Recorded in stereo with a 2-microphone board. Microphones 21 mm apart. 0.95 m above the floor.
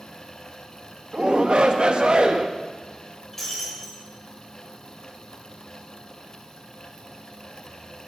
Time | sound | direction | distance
1.1 | a shout | 45° right (ahead or behind) | 0.8 m
3.3 | breaking glass | 5° left (ahead or behind) | 3 m